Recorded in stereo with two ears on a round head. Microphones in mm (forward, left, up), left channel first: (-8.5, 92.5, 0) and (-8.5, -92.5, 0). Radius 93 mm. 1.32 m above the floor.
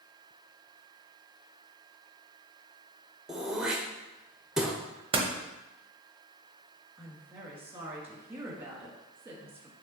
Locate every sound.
3.3 s throat clearing: 5° right (ahead or behind), 0.7 m
5.1 s a door slam: 25° right (ahead or behind), 0.8 m
7.0 s a woman speaking: 10° right (ahead or behind), 1.6 m